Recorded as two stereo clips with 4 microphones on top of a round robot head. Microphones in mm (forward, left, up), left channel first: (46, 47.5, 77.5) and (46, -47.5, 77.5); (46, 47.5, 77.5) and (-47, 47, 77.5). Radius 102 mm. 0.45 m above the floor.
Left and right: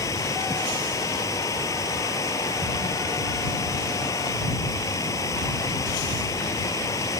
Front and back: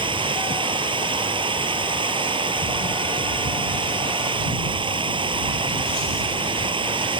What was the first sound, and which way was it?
Running water, 150° left.